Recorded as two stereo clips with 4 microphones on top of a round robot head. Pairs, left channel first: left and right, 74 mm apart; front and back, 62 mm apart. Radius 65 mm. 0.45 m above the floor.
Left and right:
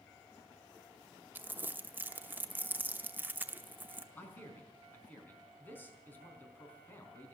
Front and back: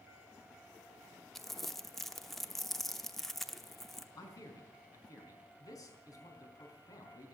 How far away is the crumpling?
About 1.0 m.